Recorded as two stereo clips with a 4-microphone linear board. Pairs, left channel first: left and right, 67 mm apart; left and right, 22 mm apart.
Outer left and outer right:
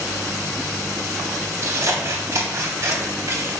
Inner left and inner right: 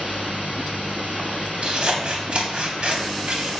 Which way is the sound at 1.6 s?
55° right (ahead or behind).